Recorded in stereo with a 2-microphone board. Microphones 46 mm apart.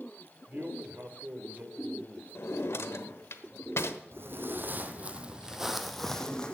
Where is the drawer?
70° left (ahead or behind), 1.0 m.